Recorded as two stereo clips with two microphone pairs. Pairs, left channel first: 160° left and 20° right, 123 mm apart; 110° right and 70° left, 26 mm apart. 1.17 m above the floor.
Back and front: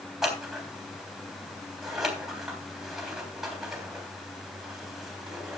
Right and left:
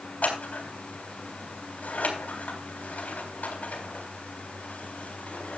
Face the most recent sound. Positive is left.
turn(degrees=-105)